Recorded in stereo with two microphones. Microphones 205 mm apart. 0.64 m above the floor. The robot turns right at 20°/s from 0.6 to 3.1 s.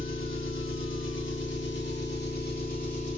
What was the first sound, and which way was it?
An engine running, 95° left.